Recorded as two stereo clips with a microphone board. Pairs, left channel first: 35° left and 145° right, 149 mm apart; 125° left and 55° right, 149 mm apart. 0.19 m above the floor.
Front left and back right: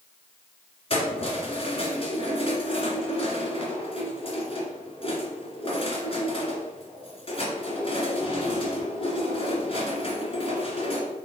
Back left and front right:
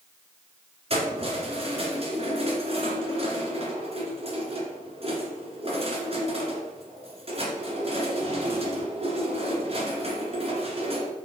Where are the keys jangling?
10° right, 2 m.